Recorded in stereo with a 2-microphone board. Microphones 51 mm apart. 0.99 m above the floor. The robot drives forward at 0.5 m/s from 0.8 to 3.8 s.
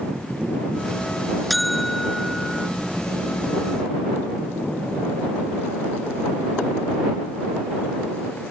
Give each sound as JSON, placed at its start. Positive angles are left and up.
{"t": 1.5, "sound": "a buzzer", "side_deg": 0}